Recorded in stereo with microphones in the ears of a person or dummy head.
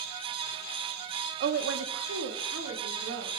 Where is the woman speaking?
50° right (ahead or behind), 0.5 m; by 3.3 s 70° right (ahead or behind), 1.9 m.